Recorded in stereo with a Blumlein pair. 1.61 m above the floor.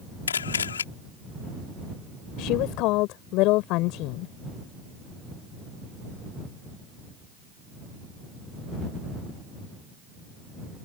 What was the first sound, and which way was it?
A camera shutter, 70° left.